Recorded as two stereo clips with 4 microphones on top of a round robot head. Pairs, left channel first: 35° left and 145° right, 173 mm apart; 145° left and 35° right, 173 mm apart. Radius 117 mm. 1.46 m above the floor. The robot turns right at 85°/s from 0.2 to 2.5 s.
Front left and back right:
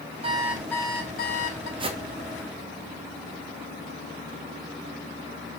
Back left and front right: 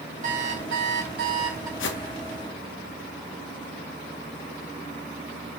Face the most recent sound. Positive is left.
turn(degrees=-150)